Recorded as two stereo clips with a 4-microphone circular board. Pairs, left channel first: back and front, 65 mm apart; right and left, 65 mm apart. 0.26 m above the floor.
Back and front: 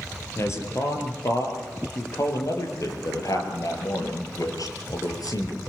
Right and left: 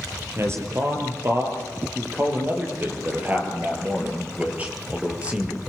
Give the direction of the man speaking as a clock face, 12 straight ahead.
7 o'clock.